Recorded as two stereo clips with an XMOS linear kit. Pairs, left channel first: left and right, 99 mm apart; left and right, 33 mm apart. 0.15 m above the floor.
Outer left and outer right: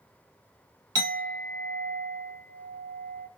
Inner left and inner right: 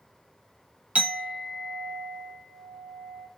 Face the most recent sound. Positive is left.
turn(degrees=-40)  # may be behind; listen again after turning